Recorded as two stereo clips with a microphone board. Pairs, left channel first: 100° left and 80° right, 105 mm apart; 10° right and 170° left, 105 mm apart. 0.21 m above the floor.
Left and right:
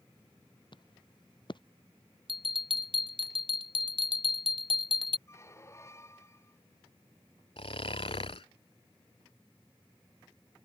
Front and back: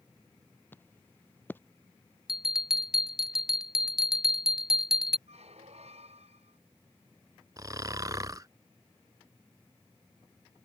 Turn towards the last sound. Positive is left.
turn(degrees=120)